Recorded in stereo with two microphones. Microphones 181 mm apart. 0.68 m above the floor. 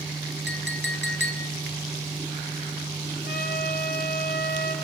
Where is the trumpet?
65° left (ahead or behind), 5.5 m.